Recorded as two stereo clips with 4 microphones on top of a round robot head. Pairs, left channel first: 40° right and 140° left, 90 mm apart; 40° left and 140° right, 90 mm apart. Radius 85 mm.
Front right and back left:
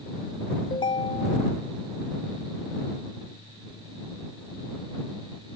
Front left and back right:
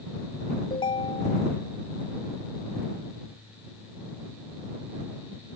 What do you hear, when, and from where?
0.7 s a ringtone: 5° left